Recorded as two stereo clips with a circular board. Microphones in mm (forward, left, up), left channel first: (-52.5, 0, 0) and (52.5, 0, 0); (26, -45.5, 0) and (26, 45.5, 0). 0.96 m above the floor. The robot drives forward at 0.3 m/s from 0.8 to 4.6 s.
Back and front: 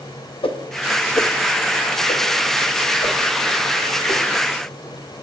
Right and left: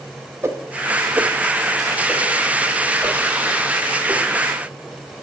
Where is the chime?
No chime in this recording.